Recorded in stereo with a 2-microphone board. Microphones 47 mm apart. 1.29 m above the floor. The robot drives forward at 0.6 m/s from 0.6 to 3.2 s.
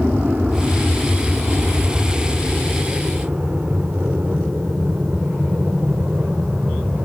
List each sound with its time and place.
0.0 s an aircraft: 45° right (ahead or behind); by 7.1 s 40° right (ahead or behind)